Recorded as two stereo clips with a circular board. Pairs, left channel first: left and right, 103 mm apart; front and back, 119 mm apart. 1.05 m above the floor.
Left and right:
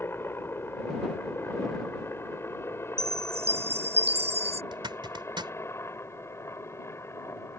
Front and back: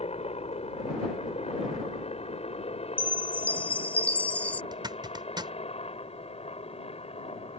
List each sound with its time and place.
0.0 s a helicopter: 20° left; by 7.6 s 25° left
3.0 s a chime: 80° right
4.7 s a zipper: 130° right